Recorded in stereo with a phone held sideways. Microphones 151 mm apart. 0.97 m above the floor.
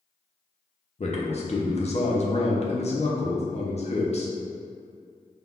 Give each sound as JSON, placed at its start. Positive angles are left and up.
{"t": 1.0, "sound": "a man speaking", "side_deg": 45, "distance_m": 0.6}